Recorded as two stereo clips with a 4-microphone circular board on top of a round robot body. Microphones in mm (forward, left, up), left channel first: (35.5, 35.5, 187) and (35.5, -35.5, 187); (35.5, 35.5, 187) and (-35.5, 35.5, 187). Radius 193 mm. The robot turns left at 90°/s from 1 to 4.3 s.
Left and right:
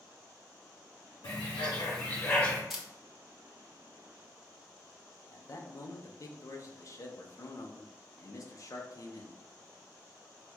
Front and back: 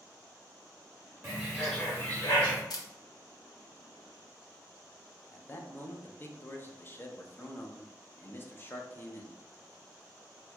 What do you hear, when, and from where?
1.2 s a bird: 125° left, 0.9 m; by 2.6 s 5° left, 0.9 m
2.7 s a camera shutter: 5° right, 0.9 m; by 2.9 s 20° right, 0.9 m
5.3 s a man speaking: 55° left, 0.7 m